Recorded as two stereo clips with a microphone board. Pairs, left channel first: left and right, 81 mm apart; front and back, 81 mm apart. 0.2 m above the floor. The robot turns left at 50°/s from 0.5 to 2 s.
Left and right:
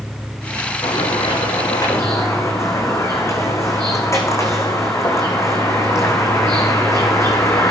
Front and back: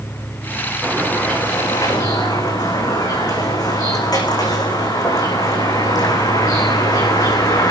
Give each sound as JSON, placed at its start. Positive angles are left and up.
{"t": 0.8, "sound": "a bird", "azimuth_deg": 95, "distance_m": 5.5}